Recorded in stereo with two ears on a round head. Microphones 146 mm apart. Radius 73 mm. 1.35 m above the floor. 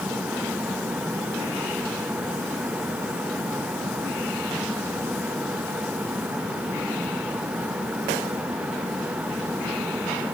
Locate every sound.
Only background noise.